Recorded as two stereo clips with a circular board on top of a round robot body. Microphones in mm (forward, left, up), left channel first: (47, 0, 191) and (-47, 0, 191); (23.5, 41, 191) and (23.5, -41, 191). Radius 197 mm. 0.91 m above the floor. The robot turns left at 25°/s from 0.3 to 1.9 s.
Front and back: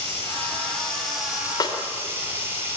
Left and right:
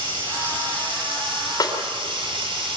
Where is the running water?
70° right, 9.5 m; by 2.8 s 110° right, 9.5 m.